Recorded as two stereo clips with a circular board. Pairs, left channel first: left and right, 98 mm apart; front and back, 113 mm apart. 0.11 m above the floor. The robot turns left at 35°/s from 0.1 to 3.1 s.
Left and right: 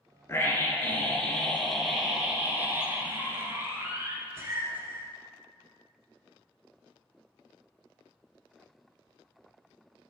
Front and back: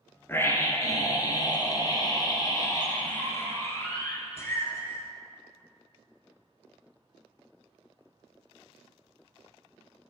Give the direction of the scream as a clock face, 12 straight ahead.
10 o'clock.